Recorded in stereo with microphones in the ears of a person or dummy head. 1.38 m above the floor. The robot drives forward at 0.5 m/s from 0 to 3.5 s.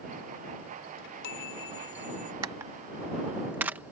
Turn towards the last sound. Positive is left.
turn(degrees=-10)  # may be behind; listen again after turning